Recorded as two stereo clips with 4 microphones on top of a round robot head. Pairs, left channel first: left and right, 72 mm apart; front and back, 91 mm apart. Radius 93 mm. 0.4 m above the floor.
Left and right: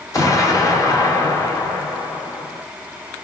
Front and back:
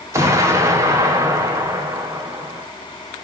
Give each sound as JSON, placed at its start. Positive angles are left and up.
{"t": 0.1, "sound": "an explosion", "azimuth_deg": 130, "distance_m": 1.2}